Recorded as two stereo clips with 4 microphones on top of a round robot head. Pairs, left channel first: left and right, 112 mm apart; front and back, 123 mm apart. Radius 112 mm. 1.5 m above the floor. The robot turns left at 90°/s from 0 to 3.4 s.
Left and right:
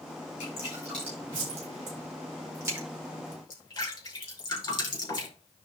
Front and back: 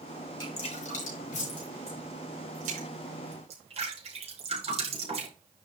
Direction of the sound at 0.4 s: 50° left.